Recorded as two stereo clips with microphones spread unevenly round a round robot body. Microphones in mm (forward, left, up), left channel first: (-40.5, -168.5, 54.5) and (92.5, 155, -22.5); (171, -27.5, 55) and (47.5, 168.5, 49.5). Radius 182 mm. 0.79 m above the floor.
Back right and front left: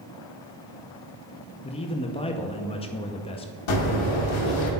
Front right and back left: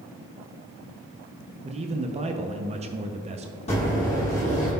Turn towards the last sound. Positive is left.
turn(degrees=-130)